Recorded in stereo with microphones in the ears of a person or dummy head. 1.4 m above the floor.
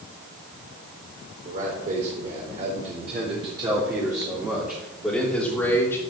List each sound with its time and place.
1.4 s a man speaking: 50° right (ahead or behind), 4 m; by 6.0 s 15° left (ahead or behind), 3 m